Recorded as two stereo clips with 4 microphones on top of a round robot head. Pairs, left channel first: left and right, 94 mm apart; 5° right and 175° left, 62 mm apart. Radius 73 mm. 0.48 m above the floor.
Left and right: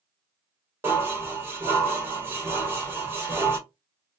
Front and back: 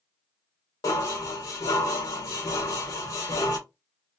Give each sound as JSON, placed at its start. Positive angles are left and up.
{"t": 0.8, "sound": "dishes clattering", "azimuth_deg": -25, "distance_m": 1.2}